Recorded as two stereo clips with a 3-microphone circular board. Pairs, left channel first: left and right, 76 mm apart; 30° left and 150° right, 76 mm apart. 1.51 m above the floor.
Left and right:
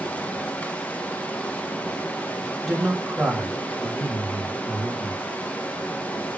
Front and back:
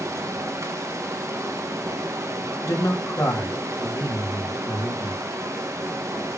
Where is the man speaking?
5° right, 3.5 m.